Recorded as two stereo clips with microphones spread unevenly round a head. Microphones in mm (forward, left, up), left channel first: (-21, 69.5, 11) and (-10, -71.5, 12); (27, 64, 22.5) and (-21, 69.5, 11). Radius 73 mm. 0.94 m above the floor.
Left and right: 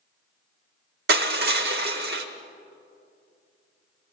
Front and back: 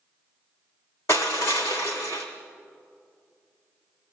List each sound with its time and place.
1.1 s crushing: 65° right, 1.2 m